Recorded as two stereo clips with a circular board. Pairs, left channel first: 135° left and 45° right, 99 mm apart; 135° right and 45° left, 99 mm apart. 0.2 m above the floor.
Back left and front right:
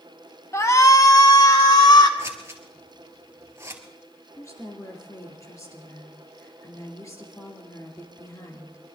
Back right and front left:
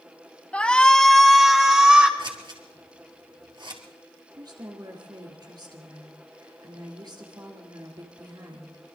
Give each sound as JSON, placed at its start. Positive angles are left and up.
{"t": 0.5, "sound": "a shout", "azimuth_deg": 160, "distance_m": 1.6}
{"t": 2.2, "sound": "scissors", "azimuth_deg": 15, "distance_m": 2.0}
{"t": 4.3, "sound": "a woman speaking", "azimuth_deg": 80, "distance_m": 3.5}